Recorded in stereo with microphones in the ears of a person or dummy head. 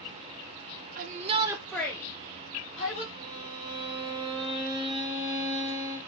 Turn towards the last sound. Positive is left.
turn(degrees=-25)  # may be behind; listen again after turning